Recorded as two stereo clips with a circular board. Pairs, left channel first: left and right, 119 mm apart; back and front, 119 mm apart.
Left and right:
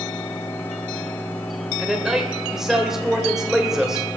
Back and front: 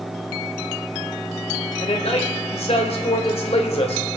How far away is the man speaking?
About 2.5 m.